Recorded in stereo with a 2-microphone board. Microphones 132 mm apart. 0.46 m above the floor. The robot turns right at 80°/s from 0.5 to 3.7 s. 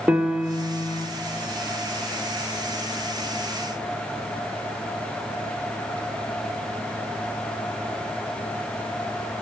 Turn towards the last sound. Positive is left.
turn(degrees=-120)